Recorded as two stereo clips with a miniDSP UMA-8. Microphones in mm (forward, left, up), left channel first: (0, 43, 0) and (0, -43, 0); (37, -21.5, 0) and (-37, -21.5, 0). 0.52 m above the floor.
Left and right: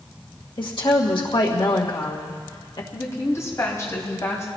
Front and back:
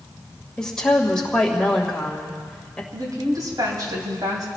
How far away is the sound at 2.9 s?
About 3 m.